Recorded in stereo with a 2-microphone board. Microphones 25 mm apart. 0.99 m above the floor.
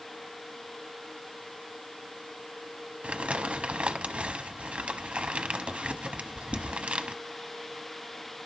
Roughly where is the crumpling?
Right.